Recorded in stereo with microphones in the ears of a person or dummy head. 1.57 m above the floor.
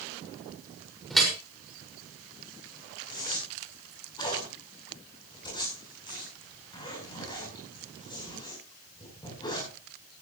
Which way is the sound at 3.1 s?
25° left (ahead or behind).